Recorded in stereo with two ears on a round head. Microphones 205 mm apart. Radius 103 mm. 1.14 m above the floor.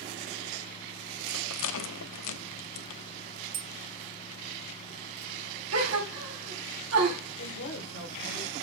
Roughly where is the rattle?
Left.